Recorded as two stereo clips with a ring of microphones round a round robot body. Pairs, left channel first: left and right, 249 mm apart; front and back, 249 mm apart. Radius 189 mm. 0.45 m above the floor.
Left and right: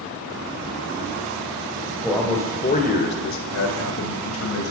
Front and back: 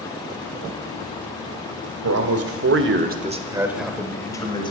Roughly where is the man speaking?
Behind.